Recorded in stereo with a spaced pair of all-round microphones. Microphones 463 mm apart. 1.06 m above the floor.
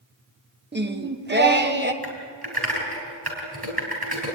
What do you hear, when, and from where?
0.7 s singing: 20° right (ahead or behind), 1.0 m
2.0 s typing on a keyboard: 55° right (ahead or behind), 5 m